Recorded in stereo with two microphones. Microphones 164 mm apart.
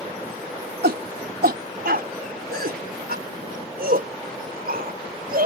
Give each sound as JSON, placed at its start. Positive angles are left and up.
{"t": 0.8, "sound": "a shout", "side_deg": -85}